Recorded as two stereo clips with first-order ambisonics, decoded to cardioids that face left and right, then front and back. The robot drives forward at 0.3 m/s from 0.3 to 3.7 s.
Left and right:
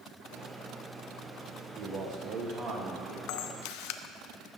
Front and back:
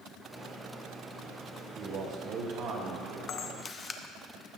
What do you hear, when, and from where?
1.8 s a man speaking: 130° right, 1.4 m; by 3.2 s 145° right, 1.6 m
3.3 s a camera shutter: 60° left, 0.5 m; by 4.0 s 75° left, 0.5 m